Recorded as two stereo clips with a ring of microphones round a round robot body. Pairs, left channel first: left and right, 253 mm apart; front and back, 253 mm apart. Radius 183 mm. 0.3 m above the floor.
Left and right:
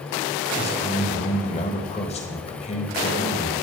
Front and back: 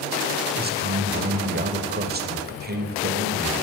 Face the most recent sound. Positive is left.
turn(degrees=145)